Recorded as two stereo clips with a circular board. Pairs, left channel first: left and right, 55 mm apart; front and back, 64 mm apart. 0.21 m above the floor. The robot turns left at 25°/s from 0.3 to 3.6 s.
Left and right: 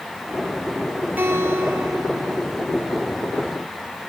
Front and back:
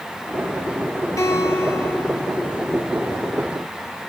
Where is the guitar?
30° right, 6.5 m; by 2.5 s 65° right, 6.5 m.